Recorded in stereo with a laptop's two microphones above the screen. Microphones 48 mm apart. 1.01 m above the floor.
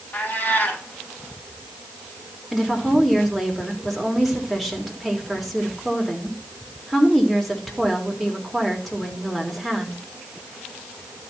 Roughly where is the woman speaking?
Centre.